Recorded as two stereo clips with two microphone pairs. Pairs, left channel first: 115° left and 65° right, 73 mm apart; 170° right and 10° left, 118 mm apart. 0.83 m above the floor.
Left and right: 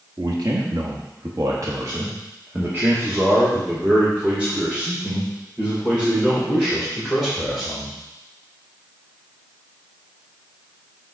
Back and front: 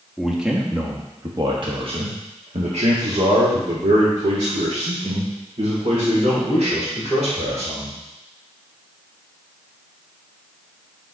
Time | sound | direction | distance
0.2 | a man speaking | 80° right | 1.2 m